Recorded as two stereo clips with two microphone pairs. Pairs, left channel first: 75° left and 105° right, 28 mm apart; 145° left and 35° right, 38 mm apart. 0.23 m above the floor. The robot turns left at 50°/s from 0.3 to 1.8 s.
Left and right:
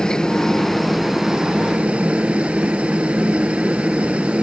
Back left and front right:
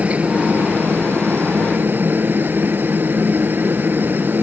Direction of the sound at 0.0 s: 10° left.